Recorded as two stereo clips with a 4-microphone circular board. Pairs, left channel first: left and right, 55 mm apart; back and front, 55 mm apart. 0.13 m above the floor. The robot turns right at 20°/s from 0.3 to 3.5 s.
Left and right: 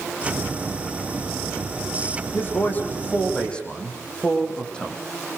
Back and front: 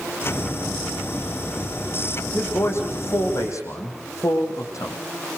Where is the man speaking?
140° left, 6.5 m; by 5.0 s 160° left, 6.5 m.